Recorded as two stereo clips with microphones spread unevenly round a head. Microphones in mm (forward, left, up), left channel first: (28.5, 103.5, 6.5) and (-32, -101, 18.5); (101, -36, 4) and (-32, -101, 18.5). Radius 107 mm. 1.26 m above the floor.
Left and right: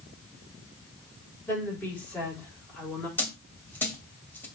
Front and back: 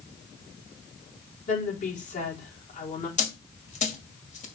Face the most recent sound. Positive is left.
turn(degrees=-10)